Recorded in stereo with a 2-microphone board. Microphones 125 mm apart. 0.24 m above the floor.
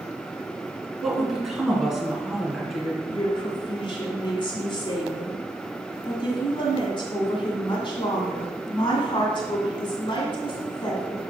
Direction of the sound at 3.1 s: 40° left (ahead or behind).